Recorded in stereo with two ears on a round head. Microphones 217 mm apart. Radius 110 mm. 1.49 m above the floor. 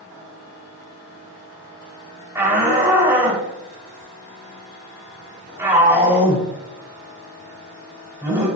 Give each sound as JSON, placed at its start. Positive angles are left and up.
{"t": 2.4, "sound": "a shout", "side_deg": -10, "distance_m": 7.0}